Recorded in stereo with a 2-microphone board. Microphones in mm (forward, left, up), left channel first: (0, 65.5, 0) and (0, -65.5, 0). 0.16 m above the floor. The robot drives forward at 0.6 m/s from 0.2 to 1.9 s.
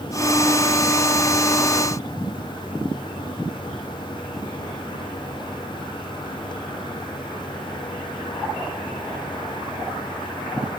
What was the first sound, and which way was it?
Only background noise.